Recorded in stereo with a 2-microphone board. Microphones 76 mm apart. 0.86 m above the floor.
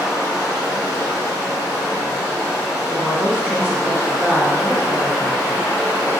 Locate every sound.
0.0 s running water: 10° left (ahead or behind), 1.4 m
2.9 s a woman speaking: 15° right (ahead or behind), 0.7 m